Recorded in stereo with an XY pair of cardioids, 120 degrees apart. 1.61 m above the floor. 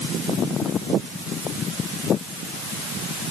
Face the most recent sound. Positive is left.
No sound to turn to.